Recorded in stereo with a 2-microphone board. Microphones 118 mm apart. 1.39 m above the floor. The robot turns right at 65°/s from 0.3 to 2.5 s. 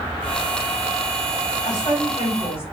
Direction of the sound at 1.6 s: 70° left.